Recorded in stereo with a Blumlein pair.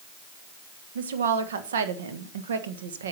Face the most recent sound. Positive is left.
turn(degrees=-65)